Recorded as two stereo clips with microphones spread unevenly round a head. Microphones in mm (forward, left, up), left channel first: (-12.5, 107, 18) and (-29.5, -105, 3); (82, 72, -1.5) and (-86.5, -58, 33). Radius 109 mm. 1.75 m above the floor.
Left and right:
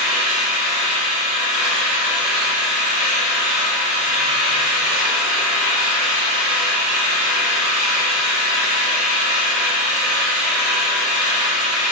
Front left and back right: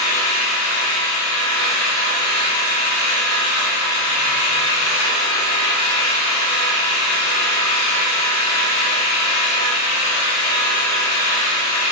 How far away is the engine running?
About 1.2 m.